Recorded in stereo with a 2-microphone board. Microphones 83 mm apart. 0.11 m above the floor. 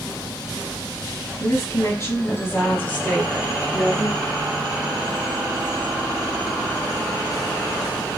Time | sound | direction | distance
1.4 | a woman speaking | 40° left (ahead or behind) | 1.8 m